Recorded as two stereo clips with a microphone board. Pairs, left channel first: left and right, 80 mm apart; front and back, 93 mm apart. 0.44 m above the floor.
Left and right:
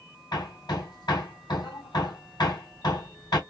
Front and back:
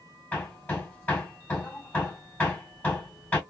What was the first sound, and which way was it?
Hammering, 70° left.